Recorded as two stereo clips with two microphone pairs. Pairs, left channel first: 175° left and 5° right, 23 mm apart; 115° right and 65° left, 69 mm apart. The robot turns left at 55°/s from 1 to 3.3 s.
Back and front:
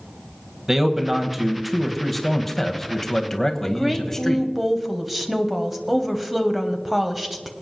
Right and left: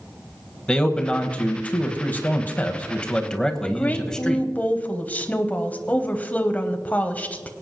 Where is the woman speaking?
85° right, 1.0 m.